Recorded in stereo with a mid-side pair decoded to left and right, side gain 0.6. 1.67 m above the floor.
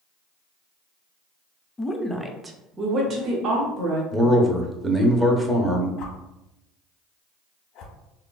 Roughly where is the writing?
No writing in this recording.